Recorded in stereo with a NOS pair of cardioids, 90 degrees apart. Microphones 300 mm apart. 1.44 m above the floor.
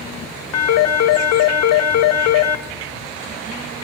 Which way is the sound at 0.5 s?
60° left.